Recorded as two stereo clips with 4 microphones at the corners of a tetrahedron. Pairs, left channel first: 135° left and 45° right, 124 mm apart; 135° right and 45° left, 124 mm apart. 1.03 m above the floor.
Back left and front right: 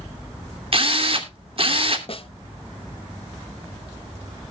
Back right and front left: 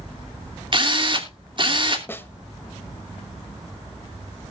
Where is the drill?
5° right, 2.5 m.